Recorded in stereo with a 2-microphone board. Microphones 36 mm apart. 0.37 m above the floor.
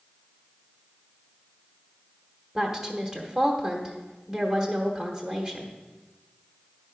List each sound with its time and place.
2.5 s a woman speaking: 10° right (ahead or behind), 1.0 m